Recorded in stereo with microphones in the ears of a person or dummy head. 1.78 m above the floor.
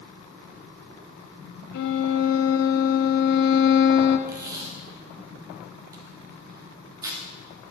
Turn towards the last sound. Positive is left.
turn(degrees=-15)  # may be behind; listen again after turning